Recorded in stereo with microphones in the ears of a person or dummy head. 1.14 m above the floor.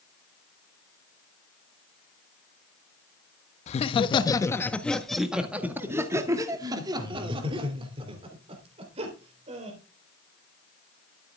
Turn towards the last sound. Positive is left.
turn(degrees=-35)  # may be behind; listen again after turning